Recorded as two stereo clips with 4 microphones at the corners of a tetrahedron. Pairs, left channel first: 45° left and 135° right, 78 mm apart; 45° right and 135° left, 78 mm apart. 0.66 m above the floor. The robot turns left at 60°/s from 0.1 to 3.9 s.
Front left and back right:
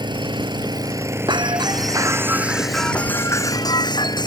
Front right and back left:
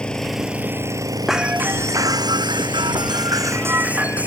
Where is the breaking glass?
140° right; by 4.3 s 65° left.